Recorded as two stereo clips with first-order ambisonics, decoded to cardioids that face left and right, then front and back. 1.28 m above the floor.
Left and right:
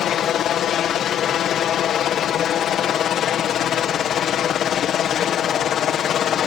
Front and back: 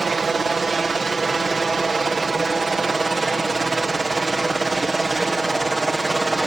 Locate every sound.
0.0 s a helicopter: 115° left; by 6.5 s 105° left